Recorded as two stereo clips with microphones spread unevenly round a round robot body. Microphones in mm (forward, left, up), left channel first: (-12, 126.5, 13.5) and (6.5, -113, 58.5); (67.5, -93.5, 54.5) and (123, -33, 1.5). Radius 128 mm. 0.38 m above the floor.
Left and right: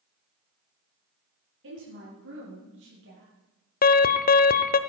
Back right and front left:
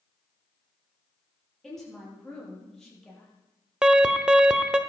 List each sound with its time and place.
1.6 s a woman speaking: 45° right, 9.5 m; by 3.3 s 50° right, 10.5 m
3.8 s an alarm: 85° left, 0.9 m